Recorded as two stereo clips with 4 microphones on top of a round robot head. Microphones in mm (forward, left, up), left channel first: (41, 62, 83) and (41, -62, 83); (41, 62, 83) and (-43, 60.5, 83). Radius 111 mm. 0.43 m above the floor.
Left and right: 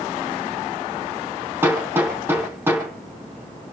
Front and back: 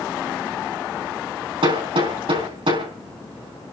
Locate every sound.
1.6 s hammering: 165° right, 4.5 m